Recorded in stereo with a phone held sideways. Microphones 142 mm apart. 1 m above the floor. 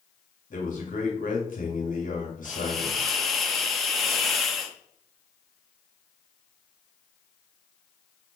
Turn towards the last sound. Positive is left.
turn(degrees=0)  # may be behind; listen again after turning